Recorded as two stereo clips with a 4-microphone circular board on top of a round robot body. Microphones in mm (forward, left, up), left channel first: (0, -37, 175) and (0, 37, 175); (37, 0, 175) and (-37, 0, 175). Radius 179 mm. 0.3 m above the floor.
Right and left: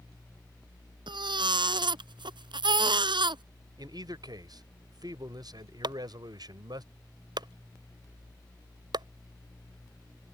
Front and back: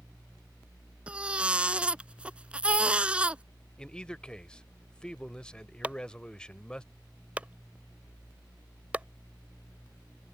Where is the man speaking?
80° left.